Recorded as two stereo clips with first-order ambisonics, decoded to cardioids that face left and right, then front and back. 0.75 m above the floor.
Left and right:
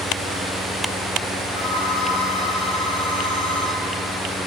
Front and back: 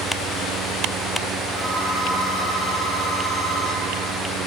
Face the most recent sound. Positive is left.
turn(degrees=70)